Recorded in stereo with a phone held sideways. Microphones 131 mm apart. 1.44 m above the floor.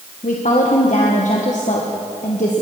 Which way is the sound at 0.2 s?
75° left (ahead or behind).